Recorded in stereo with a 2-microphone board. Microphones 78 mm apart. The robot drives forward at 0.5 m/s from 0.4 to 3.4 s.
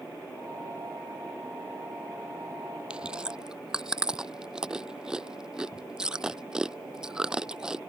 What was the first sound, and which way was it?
Chewing, 15° right (ahead or behind).